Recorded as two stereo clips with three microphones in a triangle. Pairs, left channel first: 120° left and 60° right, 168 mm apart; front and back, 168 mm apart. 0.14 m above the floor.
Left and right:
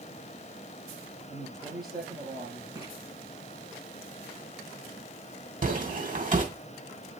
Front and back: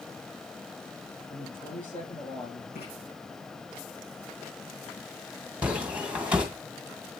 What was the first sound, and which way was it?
A man speaking, 35° right.